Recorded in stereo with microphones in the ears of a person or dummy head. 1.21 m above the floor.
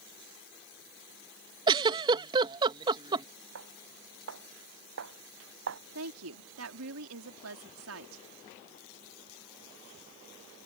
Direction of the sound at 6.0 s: 90° right.